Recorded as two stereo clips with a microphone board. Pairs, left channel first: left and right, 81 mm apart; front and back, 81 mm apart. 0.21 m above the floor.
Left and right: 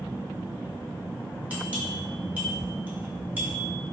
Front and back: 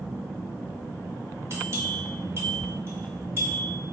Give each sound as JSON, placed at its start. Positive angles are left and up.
{"t": 1.5, "sound": "a bell", "azimuth_deg": -145, "distance_m": 1.7}